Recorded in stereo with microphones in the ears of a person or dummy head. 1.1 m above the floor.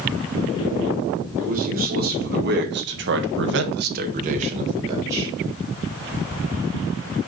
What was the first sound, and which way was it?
A man speaking, 40° right (ahead or behind).